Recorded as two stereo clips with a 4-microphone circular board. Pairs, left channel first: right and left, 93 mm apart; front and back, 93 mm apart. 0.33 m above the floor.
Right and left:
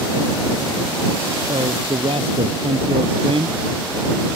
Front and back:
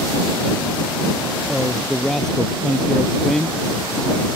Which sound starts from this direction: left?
A man speaking, at 1.5 s.